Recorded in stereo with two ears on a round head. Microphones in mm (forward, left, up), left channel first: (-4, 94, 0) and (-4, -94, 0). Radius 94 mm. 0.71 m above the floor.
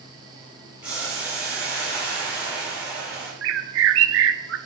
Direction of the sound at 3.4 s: 65° right (ahead or behind).